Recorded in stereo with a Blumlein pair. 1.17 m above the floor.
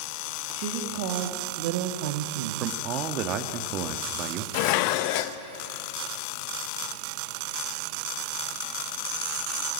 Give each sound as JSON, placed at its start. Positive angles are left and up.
{"t": 0.5, "sound": "a woman speaking", "azimuth_deg": -45, "distance_m": 2.5}
{"t": 2.6, "sound": "a man speaking", "azimuth_deg": -35, "distance_m": 1.7}
{"t": 4.5, "sound": "dishes clattering", "azimuth_deg": 45, "distance_m": 0.8}